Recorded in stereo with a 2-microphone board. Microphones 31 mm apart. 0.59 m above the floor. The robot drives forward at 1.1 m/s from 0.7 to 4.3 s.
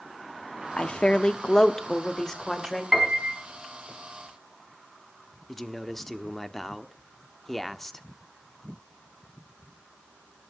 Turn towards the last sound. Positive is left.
turn(degrees=15)  # may be behind; listen again after turning